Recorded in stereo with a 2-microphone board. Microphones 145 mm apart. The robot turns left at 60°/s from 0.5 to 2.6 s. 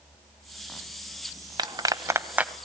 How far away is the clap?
About 0.9 m.